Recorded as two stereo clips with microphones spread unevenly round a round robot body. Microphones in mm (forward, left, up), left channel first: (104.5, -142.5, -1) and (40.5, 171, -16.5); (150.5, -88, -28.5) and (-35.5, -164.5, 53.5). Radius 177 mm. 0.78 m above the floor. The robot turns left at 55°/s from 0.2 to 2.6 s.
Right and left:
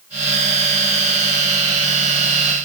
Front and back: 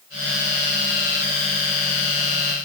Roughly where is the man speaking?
I don't hear a man speaking.